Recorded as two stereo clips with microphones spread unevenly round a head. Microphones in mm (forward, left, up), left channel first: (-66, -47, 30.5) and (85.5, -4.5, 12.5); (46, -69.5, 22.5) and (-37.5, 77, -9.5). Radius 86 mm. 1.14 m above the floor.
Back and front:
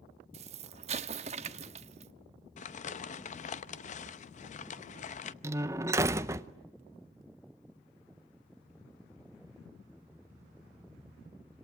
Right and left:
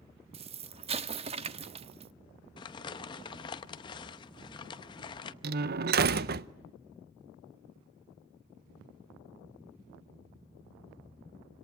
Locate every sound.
0.3 s an explosion: 65° left, 0.7 m
2.6 s crumpling: 120° right, 0.7 m
5.4 s a door slam: 90° left, 0.6 m